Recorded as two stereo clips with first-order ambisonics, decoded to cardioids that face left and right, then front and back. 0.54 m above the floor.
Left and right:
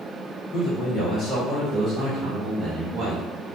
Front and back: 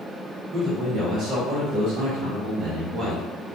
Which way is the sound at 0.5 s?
125° left.